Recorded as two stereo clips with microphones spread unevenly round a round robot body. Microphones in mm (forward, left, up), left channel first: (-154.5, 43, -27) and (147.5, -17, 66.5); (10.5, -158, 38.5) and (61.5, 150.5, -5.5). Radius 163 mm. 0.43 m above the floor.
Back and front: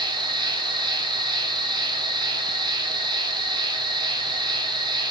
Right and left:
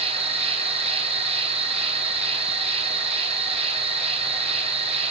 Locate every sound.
0.0 s an insect: 85° left, 2 m